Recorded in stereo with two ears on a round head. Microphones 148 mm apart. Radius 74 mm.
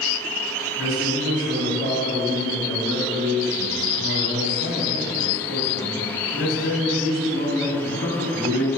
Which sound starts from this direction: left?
A man speaking, at 0.8 s.